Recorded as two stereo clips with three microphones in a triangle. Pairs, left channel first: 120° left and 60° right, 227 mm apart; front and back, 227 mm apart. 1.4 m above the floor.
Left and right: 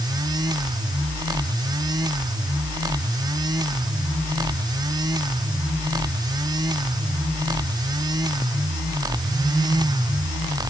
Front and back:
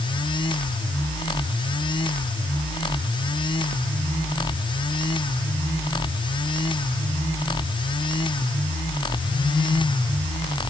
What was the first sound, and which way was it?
Only background noise.